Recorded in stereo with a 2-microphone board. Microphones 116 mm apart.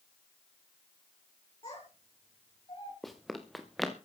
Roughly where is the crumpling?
I don't hear crumpling.